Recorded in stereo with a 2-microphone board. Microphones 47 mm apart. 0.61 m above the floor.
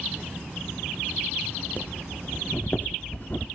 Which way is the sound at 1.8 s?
45° left (ahead or behind).